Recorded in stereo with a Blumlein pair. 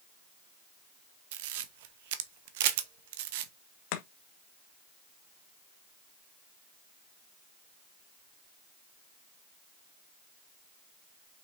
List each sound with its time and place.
1.3 s a camera shutter: 50° right, 1.2 m
3.9 s chopping: 45° left, 1.8 m